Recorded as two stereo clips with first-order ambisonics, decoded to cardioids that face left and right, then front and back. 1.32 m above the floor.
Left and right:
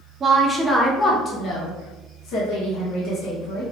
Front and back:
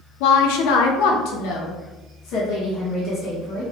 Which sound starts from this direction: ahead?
A woman speaking, at 0.2 s.